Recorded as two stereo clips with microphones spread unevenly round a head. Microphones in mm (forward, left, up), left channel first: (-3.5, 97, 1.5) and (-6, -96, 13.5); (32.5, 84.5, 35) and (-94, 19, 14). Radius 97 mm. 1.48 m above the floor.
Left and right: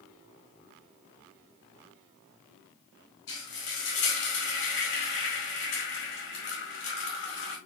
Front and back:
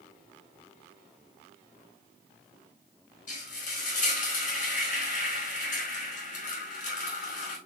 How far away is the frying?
About 5 m.